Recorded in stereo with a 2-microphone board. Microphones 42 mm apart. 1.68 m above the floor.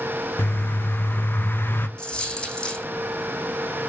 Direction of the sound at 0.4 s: 55° left (ahead or behind).